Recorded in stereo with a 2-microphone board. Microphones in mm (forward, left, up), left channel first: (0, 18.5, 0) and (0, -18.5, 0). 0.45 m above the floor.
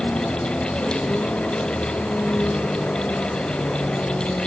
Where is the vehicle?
45° left (ahead or behind).